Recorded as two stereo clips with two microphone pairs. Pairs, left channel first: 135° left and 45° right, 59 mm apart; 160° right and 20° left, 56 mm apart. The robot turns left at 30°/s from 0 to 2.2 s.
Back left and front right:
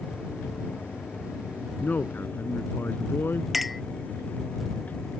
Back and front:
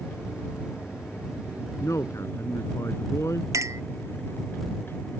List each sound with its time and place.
1.8 s a man speaking: 165° right; by 3.5 s straight behind
3.5 s a clink: 45° left